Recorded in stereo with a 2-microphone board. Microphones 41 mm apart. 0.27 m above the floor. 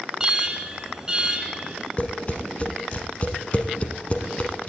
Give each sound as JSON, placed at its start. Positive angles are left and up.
{"t": 0.2, "sound": "an alarm", "side_deg": -15, "distance_m": 1.8}
{"t": 2.0, "sound": "tapping", "side_deg": 30, "distance_m": 1.4}